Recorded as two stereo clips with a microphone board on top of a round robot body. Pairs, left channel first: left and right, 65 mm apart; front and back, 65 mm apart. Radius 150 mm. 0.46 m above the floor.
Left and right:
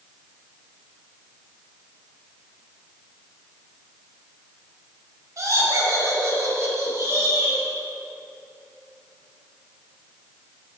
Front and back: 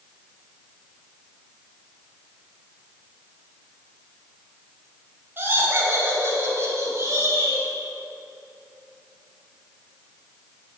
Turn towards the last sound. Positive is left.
turn(degrees=-140)